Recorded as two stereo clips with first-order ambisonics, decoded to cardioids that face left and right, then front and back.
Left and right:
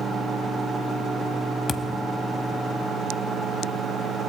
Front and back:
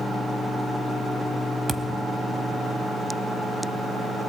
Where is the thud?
125° left, 0.8 m.